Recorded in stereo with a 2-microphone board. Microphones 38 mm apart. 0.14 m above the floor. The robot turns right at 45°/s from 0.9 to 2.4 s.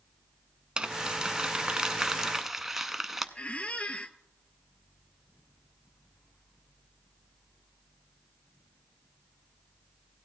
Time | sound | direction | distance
0.8 | crumpling | 25° right (ahead or behind) | 0.5 m
3.4 | a squeak | 35° left (ahead or behind) | 0.5 m